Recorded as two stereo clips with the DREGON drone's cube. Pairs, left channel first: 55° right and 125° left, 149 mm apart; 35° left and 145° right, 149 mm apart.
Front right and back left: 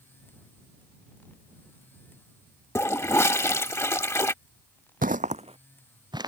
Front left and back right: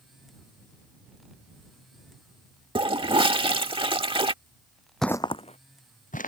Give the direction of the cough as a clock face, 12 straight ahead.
I don't hear a cough.